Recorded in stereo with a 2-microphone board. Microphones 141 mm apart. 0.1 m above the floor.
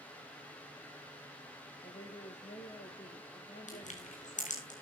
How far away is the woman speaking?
About 2.5 m.